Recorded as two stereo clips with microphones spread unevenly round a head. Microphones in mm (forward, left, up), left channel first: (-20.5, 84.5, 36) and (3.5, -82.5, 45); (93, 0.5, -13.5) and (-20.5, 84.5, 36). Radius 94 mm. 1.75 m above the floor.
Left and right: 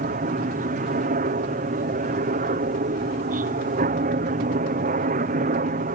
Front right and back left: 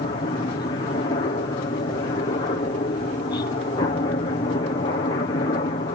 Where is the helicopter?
60° right.